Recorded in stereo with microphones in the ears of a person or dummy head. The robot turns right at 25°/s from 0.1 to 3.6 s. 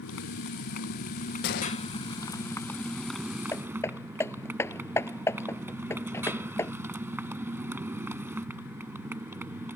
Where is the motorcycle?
105° left; by 9.8 s 170° right.